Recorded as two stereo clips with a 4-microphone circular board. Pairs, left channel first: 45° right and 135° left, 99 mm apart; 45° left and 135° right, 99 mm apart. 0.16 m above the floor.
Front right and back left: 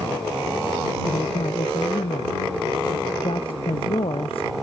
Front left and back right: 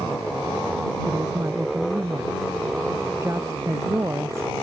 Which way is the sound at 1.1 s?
75° right.